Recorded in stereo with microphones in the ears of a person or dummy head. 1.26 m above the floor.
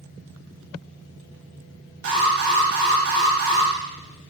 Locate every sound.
2.0 s an alarm: 50° right (ahead or behind), 2 m